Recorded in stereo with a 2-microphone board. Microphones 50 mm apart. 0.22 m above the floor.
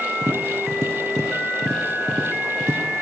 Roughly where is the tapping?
Right.